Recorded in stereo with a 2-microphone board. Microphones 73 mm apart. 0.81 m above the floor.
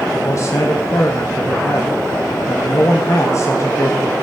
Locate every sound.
0.1 s a man speaking: 45° left (ahead or behind), 1.4 m